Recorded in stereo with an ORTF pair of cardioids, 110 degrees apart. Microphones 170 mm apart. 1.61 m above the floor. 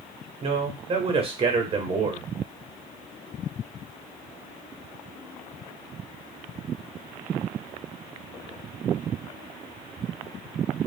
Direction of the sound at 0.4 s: 35° right.